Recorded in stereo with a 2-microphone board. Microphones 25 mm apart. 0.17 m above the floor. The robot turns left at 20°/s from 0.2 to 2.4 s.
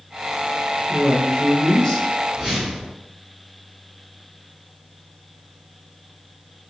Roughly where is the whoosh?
Right.